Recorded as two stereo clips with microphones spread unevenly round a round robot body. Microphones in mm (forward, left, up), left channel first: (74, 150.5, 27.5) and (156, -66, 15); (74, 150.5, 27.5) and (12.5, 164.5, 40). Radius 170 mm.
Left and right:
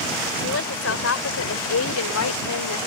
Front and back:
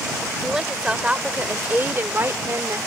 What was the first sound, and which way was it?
A woman speaking, 85° left.